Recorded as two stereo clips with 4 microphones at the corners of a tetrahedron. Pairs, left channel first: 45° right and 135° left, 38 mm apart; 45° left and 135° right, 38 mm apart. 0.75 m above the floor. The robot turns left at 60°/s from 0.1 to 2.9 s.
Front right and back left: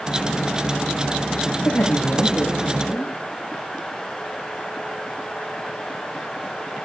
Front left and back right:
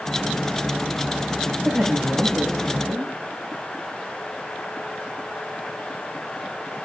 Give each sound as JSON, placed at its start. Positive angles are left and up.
{"t": 1.6, "sound": "a woman speaking", "azimuth_deg": -65, "distance_m": 4.5}